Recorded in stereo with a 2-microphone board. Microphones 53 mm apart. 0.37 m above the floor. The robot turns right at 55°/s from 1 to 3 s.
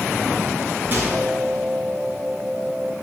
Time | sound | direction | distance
0.9 | a microwave | 40° right (ahead or behind) | 4 m